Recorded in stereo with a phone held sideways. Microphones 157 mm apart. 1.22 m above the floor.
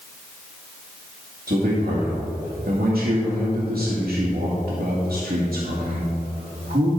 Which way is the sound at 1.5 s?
70° right (ahead or behind).